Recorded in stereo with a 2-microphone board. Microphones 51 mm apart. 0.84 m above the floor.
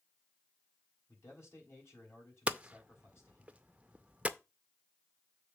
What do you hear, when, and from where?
1.1 s a man speaking: 55° left (ahead or behind), 4 m
2.5 s hammering: 25° right (ahead or behind), 0.5 m